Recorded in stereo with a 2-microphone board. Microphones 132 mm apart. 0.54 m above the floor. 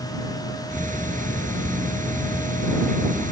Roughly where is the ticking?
Right.